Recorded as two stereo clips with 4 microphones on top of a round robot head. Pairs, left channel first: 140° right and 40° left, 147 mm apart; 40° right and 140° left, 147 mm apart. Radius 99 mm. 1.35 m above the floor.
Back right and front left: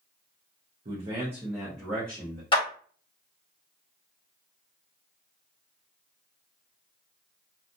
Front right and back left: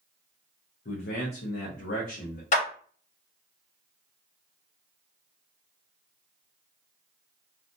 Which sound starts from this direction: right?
A clap, at 2.5 s.